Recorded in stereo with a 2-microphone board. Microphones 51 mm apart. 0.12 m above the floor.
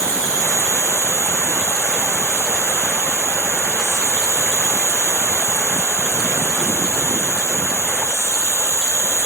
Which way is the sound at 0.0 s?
80° left.